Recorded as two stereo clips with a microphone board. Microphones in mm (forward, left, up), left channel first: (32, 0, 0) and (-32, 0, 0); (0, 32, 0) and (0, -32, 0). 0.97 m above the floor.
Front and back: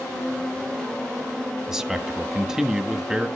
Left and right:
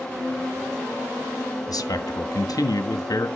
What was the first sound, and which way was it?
A man speaking, 100° left.